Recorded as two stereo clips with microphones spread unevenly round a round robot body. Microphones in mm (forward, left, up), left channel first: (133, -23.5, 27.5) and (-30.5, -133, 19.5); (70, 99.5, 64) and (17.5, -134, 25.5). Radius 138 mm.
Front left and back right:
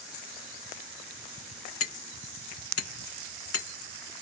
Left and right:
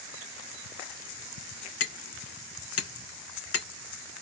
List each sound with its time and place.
1.8 s hammering: 50° left, 2 m